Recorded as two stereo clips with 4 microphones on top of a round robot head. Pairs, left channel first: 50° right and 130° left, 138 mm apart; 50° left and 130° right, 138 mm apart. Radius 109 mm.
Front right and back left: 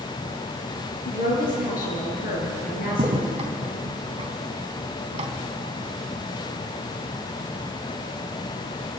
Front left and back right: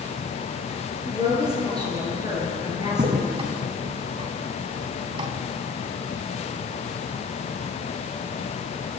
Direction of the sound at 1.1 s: 70° right.